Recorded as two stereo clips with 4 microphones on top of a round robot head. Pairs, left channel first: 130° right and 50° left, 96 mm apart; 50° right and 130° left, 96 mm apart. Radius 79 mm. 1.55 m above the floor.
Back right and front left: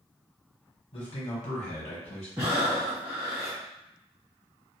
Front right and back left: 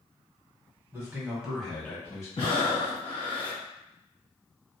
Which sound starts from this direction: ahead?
Breathing, at 2.4 s.